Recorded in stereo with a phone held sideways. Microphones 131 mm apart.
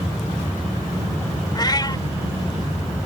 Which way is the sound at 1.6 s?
35° left (ahead or behind).